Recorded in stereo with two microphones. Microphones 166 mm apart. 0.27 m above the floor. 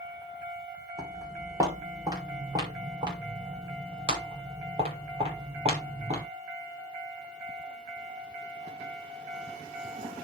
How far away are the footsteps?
About 8.5 m.